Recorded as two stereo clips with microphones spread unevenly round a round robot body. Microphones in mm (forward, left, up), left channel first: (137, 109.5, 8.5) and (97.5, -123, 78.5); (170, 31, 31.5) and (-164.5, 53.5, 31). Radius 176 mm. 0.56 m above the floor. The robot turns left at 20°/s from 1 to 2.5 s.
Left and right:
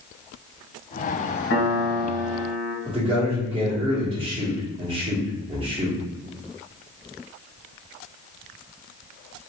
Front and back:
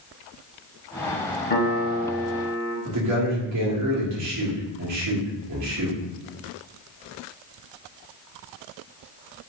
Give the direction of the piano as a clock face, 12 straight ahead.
10 o'clock.